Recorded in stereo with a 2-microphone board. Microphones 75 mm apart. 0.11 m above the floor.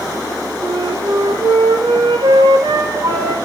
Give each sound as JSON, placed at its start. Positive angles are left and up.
{"t": 0.6, "sound": "a flute", "side_deg": -80, "distance_m": 7.5}